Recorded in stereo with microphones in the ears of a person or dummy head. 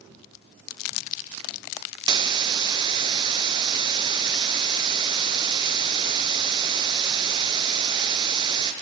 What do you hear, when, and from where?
2.1 s a hiss: 25° right (ahead or behind), 0.8 m